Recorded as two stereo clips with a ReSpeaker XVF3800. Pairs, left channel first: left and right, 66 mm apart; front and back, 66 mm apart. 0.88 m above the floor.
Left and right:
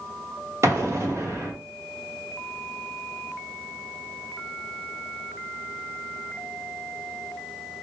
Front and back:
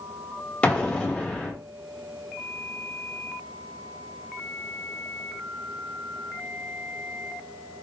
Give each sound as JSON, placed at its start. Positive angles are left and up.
{"t": 0.6, "sound": "an explosion", "azimuth_deg": -65, "distance_m": 1.2}